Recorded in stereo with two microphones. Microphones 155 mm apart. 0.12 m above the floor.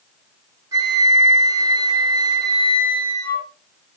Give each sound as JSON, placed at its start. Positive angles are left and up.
{"t": 0.7, "sound": "a flute", "side_deg": -25, "distance_m": 3.5}